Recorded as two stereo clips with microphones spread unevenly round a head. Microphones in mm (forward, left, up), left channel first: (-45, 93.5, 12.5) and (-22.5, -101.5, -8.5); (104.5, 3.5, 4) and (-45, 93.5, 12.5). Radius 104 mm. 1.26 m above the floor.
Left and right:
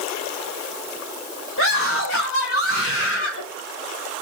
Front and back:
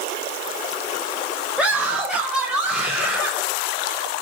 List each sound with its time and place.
1.6 s a scream: 65° left, 5 m; by 3.4 s 60° left, 6.5 m